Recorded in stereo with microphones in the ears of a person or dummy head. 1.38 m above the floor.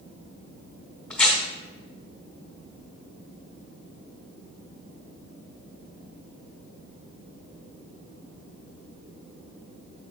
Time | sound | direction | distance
1.1 | tearing paper | 5° left (ahead or behind) | 1.8 m